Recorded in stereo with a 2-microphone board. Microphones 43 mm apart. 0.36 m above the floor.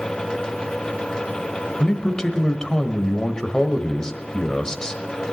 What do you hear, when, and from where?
1.8 s a man speaking: 15° left (ahead or behind), 1.3 m